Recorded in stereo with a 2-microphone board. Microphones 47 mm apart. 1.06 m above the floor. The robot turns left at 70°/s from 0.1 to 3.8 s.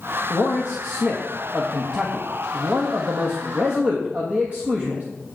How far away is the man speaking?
About 1.3 m.